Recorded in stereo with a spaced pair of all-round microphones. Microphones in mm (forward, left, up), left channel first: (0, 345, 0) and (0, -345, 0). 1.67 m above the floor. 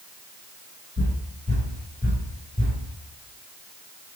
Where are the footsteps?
25° right (ahead or behind), 1.7 m; by 2.8 s 10° left (ahead or behind), 1.8 m.